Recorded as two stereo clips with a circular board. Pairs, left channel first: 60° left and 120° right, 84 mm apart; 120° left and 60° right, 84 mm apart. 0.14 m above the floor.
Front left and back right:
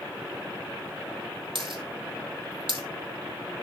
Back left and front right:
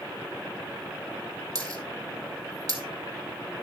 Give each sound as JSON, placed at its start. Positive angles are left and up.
{"t": 1.6, "sound": "a dropped coin", "azimuth_deg": -105, "distance_m": 1.9}